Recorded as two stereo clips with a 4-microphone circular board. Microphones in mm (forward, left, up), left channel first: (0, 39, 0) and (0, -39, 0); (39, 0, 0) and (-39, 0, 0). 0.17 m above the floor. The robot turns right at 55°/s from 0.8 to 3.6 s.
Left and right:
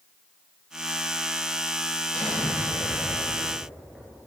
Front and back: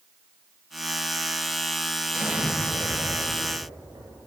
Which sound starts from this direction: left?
An explosion, at 2.1 s.